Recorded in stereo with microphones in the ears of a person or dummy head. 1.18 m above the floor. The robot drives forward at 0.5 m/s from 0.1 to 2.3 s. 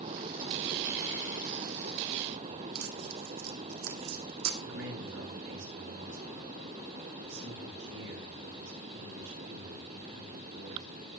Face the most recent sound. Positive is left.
turn(degrees=-85)